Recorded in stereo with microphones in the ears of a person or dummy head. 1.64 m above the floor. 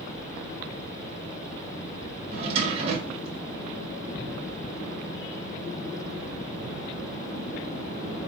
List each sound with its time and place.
2.3 s a drawer: 35° right (ahead or behind), 1.4 m